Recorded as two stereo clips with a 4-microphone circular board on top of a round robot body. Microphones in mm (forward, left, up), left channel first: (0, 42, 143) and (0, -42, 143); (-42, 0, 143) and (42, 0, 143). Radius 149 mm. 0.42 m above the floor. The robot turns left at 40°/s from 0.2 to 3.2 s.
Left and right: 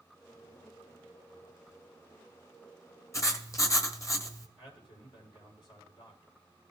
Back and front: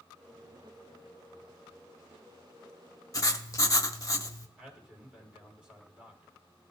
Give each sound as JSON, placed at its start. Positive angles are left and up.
{"t": 3.1, "sound": "writing", "azimuth_deg": 140, "distance_m": 1.2}
{"t": 4.6, "sound": "a man speaking", "azimuth_deg": 80, "distance_m": 4.0}